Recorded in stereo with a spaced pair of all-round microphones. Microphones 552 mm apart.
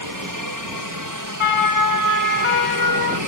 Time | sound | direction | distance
0.0 | a helicopter | 35° right (ahead or behind) | ?
1.4 | a siren | 60° left (ahead or behind) | ?